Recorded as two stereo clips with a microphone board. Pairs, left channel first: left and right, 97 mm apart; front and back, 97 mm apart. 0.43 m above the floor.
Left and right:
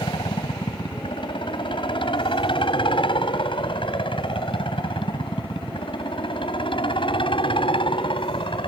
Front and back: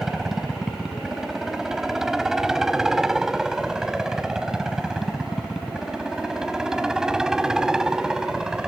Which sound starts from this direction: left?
A helicopter, at 0.0 s.